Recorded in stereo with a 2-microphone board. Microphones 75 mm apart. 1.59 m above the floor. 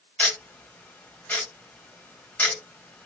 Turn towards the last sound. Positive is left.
turn(degrees=20)  # may be behind; listen again after turning